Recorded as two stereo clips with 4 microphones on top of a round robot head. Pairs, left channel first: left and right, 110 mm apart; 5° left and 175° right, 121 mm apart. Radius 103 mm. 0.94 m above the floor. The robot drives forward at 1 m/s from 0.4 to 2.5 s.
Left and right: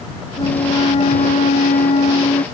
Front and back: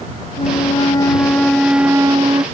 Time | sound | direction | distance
0.4 | a flute | 45° left | ?